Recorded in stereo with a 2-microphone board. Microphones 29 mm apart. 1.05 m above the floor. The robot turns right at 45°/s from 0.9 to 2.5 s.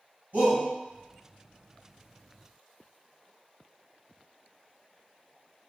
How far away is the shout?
About 2.0 m.